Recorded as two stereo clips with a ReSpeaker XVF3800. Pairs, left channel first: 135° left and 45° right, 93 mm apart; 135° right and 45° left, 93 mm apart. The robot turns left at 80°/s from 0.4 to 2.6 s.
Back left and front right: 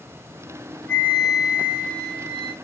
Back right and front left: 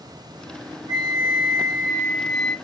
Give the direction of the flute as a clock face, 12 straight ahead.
9 o'clock.